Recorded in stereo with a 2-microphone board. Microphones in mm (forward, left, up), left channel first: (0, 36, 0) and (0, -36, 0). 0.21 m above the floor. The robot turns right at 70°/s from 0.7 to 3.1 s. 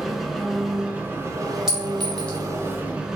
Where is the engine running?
175° right, 0.7 m; by 3.2 s 10° right, 0.7 m.